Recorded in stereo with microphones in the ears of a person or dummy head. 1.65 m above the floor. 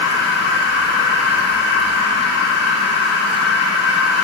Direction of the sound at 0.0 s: 20° right (ahead or behind).